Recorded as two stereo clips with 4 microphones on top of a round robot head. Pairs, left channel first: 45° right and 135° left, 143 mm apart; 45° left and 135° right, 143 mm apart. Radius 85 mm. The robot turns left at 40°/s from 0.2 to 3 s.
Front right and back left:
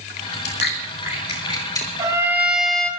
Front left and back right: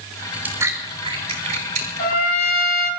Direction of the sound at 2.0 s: 75° left.